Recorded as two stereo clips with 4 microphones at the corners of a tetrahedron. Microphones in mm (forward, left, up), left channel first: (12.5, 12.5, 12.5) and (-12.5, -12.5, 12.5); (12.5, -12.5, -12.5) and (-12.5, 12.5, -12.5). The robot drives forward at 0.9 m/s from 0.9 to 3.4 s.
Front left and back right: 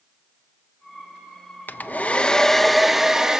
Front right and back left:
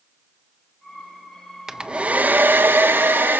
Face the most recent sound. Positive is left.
turn(degrees=155)